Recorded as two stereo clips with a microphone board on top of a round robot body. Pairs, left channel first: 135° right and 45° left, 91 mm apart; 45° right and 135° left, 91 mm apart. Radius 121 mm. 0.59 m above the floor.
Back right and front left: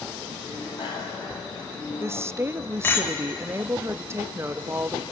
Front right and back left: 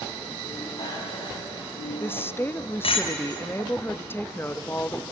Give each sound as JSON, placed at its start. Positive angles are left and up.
{"t": 0.4, "sound": "a bicycle bell", "azimuth_deg": -95, "distance_m": 4.0}
{"t": 2.0, "sound": "a woman speaking", "azimuth_deg": 5, "distance_m": 0.6}